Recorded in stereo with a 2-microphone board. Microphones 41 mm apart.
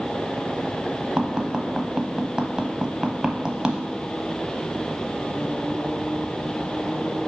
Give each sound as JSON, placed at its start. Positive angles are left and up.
{"t": 1.2, "sound": "tapping", "side_deg": -20, "distance_m": 0.7}